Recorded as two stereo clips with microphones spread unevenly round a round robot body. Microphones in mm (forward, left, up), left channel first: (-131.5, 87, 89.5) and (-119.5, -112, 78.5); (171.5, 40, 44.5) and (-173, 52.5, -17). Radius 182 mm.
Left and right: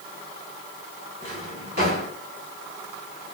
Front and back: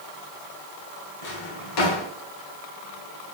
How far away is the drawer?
About 1.1 m.